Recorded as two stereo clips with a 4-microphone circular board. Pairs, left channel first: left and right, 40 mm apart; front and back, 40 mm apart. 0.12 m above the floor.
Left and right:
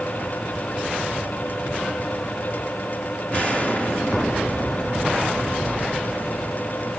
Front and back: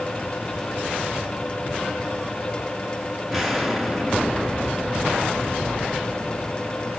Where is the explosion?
105° left, 1.8 m.